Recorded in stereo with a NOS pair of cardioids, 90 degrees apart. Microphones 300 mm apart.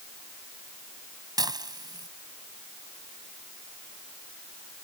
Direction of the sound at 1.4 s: 15° right.